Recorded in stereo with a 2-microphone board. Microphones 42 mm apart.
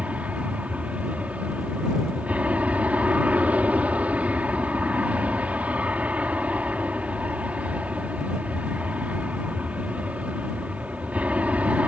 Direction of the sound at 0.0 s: 35° right (ahead or behind).